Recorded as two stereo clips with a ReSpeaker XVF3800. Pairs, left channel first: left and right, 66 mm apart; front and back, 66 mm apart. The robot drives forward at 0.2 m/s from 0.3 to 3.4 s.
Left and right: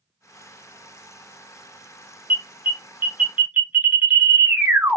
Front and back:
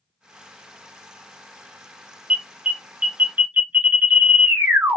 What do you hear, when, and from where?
2.3 s an alarm: 115° right, 0.9 m; by 5.0 s 135° right, 0.9 m